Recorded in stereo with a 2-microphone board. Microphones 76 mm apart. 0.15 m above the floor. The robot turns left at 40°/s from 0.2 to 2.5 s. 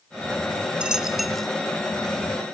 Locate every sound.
0.8 s a dropped coin: 15° right (ahead or behind), 0.6 m; by 1.5 s 5° left (ahead or behind), 0.6 m